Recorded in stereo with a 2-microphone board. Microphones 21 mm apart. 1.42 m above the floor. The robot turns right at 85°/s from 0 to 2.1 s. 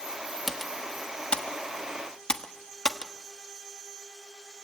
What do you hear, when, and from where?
0.5 s typing on a keyboard: centre (ahead or behind), 1.3 m; by 3.1 s 35° left (ahead or behind), 1.3 m